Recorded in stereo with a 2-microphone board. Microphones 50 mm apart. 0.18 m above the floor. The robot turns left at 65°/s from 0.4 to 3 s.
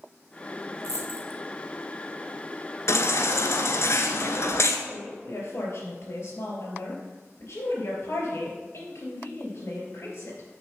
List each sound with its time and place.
0.8 s a dropped coin: 90° right, 1.5 m; by 1.4 s 55° right (ahead or behind), 1.5 m
2.9 s a baby crying: 65° left (ahead or behind), 1.1 m
4.9 s a woman speaking: 65° left (ahead or behind), 4 m